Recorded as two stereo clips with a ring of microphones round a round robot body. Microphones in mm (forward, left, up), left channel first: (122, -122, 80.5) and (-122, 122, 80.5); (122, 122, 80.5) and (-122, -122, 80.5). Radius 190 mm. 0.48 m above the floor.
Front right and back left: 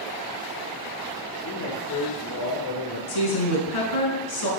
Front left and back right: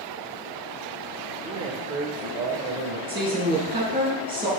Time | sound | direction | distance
1.4 | a man speaking | 60° right | 1.6 m
3.1 | a woman speaking | 60° right | 5 m